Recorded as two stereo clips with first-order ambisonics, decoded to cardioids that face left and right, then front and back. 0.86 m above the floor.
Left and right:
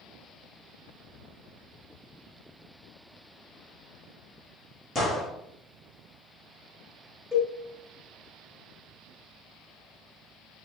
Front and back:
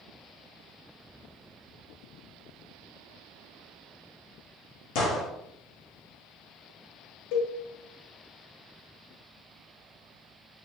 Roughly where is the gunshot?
Ahead.